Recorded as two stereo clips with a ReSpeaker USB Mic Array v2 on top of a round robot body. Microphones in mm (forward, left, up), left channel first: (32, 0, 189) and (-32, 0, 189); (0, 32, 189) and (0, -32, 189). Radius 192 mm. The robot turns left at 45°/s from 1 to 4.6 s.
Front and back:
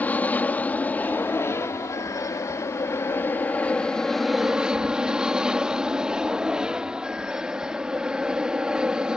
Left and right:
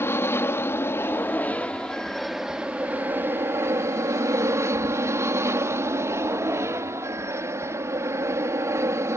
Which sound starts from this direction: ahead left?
An aircraft, at 0.0 s.